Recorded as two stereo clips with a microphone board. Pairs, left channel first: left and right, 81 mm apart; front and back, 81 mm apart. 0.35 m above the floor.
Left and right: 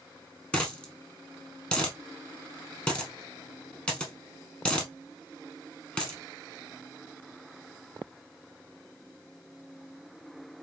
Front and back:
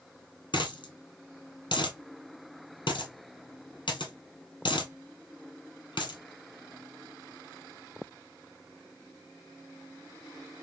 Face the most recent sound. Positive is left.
turn(degrees=15)